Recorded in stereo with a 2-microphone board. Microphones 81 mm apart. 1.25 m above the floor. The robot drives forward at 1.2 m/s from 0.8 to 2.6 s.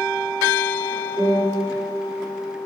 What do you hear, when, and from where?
1.2 s a piano: 25° right (ahead or behind), 3.5 m; by 1.6 s 30° right (ahead or behind), 3 m